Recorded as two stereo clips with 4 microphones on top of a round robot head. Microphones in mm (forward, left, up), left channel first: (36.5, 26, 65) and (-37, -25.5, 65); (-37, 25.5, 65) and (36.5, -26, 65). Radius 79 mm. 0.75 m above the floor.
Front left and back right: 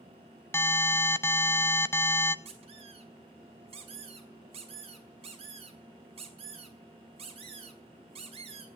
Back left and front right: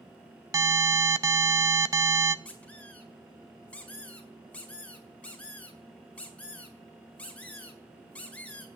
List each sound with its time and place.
0.5 s an alarm: 10° right, 0.8 m
2.5 s a squeak: 140° right, 3.5 m